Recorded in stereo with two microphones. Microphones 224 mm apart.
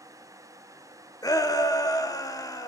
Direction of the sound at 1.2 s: 15° left (ahead or behind).